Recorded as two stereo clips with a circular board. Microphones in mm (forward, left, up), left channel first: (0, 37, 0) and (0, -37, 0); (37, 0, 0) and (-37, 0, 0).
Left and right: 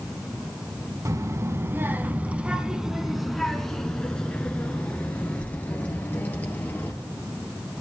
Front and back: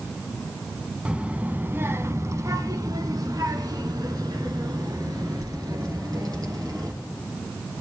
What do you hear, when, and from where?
1.1 s a child speaking: 110° right, 1.0 m; by 6.9 s 150° left, 3 m